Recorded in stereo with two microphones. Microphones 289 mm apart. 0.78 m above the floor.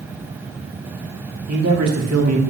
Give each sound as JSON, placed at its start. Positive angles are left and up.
{"t": 1.5, "sound": "a man speaking", "side_deg": -65, "distance_m": 2.0}